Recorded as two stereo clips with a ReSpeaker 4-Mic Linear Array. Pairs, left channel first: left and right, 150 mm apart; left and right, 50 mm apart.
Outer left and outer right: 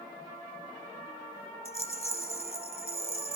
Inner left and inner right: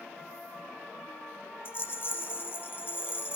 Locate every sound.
1.6 s a rattle: 45° left (ahead or behind), 0.7 m